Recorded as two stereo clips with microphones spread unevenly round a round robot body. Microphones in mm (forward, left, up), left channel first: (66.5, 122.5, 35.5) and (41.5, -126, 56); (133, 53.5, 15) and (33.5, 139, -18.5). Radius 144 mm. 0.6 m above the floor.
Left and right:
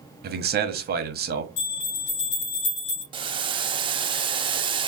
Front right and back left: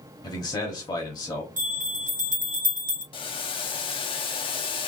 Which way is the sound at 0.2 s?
105° right.